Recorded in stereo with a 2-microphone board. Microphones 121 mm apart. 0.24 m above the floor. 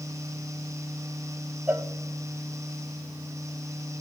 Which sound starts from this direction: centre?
A cowbell, at 1.7 s.